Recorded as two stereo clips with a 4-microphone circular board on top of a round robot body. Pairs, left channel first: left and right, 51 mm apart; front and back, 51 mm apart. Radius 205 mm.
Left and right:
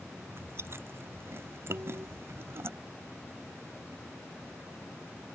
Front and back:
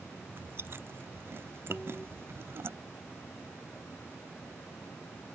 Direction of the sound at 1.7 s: 70° right.